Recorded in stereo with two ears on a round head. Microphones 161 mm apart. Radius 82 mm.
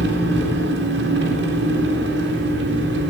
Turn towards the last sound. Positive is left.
turn(degrees=-65)  # may be behind; listen again after turning